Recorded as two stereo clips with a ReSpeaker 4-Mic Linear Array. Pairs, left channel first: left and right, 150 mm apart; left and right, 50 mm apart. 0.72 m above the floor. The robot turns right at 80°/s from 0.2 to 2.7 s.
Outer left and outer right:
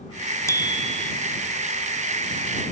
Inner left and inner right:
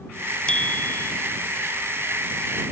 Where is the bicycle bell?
20° left; by 1.1 s 70° left.